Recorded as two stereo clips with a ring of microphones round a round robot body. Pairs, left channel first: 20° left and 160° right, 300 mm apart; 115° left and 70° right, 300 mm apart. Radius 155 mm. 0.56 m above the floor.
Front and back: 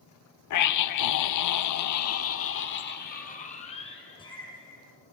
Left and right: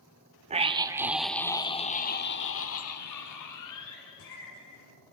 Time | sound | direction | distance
0.5 | a scream | straight ahead | 1.4 m